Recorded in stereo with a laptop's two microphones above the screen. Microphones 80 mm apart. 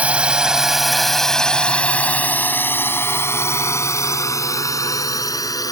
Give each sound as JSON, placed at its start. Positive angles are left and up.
{"t": 0.0, "sound": "a drone", "side_deg": -15}